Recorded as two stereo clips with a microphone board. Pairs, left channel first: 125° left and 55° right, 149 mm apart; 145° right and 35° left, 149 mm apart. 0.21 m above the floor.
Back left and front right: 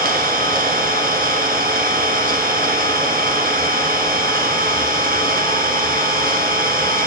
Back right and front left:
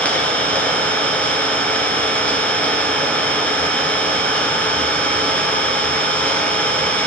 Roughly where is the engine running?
Ahead right.